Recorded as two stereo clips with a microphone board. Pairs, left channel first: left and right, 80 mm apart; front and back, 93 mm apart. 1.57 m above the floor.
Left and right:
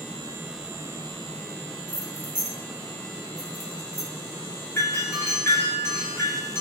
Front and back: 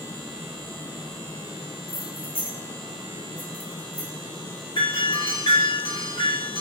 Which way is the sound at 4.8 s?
30° left.